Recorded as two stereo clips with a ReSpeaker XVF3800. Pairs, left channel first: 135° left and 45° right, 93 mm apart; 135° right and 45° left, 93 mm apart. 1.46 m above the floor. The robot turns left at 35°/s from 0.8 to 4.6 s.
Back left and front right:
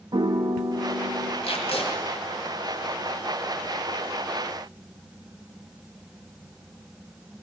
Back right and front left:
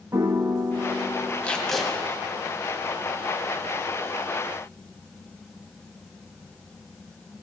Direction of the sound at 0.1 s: 10° right.